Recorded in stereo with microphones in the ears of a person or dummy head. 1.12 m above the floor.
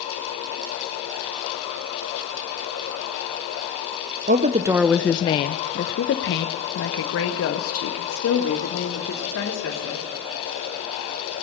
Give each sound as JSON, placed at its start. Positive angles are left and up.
{"t": 4.3, "sound": "a woman speaking", "side_deg": -35, "distance_m": 0.6}